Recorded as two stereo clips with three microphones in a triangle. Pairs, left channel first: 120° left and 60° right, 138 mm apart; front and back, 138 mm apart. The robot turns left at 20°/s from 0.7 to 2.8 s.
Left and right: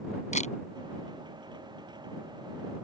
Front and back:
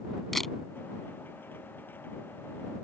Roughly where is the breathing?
No breathing in this recording.